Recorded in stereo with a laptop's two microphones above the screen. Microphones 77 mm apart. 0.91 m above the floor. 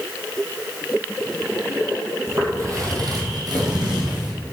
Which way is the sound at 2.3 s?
35° right (ahead or behind).